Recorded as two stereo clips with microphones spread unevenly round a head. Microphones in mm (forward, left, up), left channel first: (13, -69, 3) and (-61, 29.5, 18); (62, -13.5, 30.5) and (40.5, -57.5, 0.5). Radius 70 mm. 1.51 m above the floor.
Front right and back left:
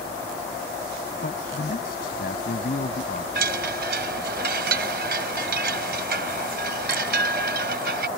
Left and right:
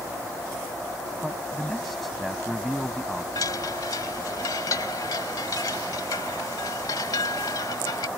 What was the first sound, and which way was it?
A man speaking, 20° right.